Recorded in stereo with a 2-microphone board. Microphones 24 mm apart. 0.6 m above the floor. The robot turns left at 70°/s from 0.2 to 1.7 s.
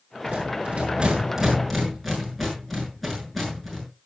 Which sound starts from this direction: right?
A rattle, at 0.3 s.